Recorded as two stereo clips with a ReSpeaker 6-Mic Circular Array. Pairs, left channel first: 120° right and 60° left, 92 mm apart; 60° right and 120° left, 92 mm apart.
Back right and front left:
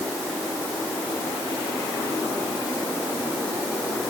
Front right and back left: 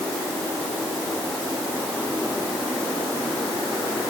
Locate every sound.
Only background noise.